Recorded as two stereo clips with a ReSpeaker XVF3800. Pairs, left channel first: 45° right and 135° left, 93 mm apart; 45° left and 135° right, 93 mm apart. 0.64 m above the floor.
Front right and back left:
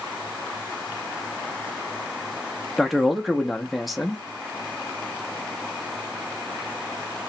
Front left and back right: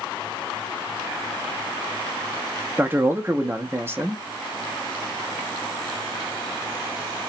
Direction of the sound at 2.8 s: 140° right.